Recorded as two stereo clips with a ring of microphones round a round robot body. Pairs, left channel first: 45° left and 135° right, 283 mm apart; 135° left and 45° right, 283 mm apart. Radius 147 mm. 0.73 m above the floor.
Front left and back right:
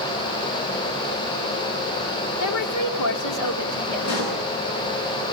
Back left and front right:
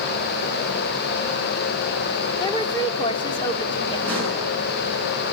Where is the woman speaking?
60° left, 1.9 m.